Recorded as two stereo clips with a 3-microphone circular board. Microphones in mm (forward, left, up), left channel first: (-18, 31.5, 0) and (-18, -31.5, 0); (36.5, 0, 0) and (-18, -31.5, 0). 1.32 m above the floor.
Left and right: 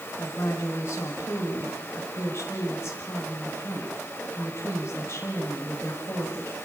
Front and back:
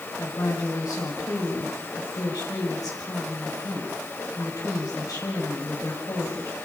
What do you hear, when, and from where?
0.2 s a woman speaking: 45° left, 6 m